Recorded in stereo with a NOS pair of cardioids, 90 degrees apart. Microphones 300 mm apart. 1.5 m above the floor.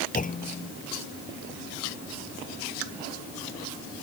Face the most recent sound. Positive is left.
turn(degrees=25)